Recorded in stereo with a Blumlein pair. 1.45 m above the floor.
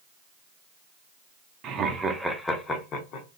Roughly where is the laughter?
Ahead right.